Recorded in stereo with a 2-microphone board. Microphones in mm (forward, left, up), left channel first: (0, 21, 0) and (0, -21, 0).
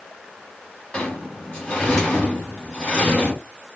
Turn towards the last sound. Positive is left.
turn(degrees=25)  # may be behind; listen again after turning